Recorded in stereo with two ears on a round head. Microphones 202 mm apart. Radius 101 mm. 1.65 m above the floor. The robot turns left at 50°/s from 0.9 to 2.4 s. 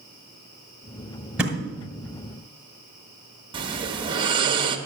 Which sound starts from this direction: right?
Snoring, at 3.5 s.